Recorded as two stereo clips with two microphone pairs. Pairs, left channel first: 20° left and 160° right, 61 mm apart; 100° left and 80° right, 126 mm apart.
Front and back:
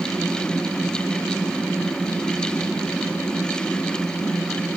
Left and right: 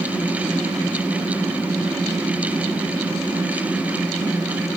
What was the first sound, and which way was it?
Only background noise.